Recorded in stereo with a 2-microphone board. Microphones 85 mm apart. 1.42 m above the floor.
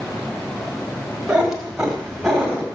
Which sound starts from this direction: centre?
A cat meowing, at 1.3 s.